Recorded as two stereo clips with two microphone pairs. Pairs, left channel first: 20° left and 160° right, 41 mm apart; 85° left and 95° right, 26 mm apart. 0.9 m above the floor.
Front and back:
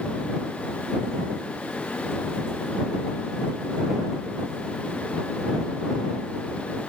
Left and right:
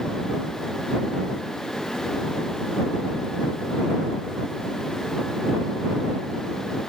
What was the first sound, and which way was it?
Only background noise.